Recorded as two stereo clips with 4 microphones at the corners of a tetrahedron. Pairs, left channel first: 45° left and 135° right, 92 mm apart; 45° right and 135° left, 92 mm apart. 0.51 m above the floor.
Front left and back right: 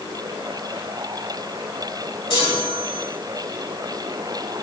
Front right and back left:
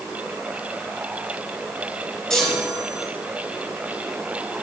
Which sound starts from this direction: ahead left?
A chime, at 2.3 s.